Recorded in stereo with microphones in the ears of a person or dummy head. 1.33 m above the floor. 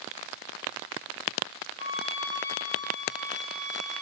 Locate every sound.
1.8 s a flute: 25° right (ahead or behind), 1.0 m